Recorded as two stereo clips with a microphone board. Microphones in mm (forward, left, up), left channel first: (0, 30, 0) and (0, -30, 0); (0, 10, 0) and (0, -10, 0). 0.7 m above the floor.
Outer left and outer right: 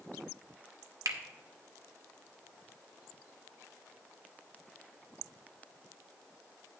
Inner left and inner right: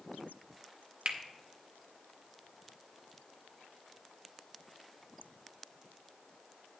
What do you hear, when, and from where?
1.1 s a finger snap: 70° right (ahead or behind), 1.1 m